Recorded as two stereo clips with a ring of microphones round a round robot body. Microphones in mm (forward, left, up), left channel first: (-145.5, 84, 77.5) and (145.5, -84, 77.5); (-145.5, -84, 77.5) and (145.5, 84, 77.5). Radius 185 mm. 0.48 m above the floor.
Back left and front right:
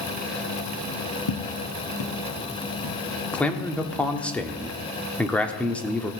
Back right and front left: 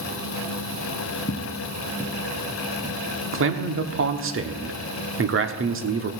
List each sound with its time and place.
1.3 s footsteps: 145° left, 1.3 m; by 3.0 s 120° left, 2.5 m
3.3 s a man speaking: 65° left, 1.1 m